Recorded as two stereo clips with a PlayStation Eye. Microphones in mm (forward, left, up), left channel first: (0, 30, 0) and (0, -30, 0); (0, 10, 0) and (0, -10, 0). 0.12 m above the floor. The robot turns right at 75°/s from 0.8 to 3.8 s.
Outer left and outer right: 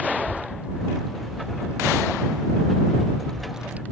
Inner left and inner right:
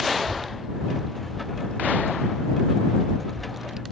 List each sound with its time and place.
0.2 s a child speaking: 20° right (ahead or behind); by 3.8 s 25° right (ahead or behind)